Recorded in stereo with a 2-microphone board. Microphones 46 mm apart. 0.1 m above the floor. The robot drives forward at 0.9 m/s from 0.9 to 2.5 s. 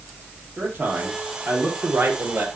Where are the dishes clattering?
I don't hear dishes clattering.